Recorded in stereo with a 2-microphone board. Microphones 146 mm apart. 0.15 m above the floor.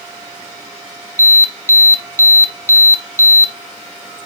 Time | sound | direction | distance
1.2 | an alarm | 20° left (ahead or behind) | 0.7 m